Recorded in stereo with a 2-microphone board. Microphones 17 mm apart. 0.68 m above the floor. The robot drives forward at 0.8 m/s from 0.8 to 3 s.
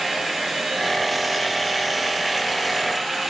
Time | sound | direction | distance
0.0 | running water | 5° right (ahead or behind) | 8 m